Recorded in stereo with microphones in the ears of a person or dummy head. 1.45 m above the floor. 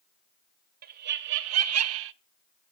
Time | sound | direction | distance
0.8 | laughter | 50° right (ahead or behind) | 1.2 m